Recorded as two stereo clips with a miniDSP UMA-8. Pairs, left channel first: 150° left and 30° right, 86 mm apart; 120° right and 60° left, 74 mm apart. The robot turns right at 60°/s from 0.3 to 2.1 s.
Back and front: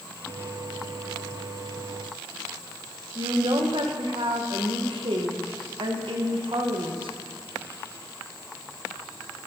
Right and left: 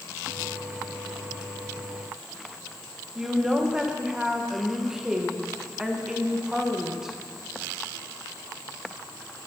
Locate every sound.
3.1 s a woman speaking: 20° right, 1.9 m